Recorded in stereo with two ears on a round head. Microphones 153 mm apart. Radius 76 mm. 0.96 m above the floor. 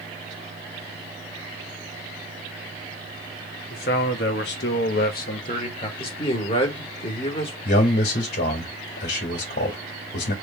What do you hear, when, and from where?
3.7 s a man speaking: 60° left (ahead or behind), 1.7 m; by 5.9 s 35° left (ahead or behind), 1.5 m
6.0 s a man speaking: 35° left (ahead or behind), 1.9 m
7.7 s a man speaking: 60° left (ahead or behind), 2.0 m